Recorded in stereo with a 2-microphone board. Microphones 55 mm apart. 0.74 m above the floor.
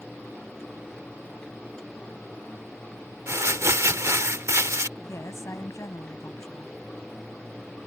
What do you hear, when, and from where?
3.3 s crumpling: 60° right (ahead or behind)
5.0 s a woman speaking: 65° left (ahead or behind)